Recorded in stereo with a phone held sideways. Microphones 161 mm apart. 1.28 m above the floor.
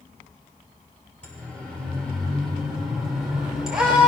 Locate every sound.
1.2 s a siren: 10° left (ahead or behind), 6 m; by 4.1 s 5° right (ahead or behind), 6 m